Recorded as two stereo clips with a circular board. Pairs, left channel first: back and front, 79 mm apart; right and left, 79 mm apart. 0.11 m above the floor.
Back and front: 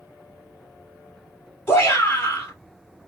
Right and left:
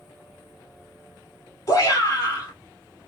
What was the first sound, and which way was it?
A shout, 130° right.